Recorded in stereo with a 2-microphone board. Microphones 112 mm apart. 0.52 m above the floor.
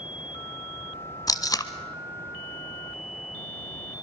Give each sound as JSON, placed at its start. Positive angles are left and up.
{"t": 1.3, "sound": "tape being pulled", "side_deg": 35, "distance_m": 0.8}